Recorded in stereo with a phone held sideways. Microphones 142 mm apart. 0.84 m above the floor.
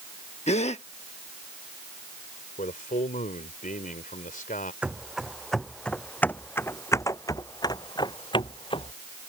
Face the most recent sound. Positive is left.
turn(degrees=40)  # may be behind; listen again after turning